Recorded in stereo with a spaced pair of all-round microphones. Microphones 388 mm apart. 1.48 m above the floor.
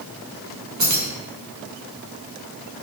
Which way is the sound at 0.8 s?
45° right (ahead or behind).